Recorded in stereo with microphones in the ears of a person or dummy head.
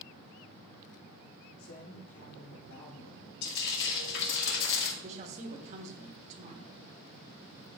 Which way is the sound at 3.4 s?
65° left (ahead or behind).